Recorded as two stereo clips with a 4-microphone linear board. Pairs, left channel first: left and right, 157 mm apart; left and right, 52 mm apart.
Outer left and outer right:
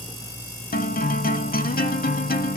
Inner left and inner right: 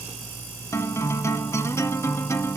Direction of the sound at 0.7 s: 70° left (ahead or behind).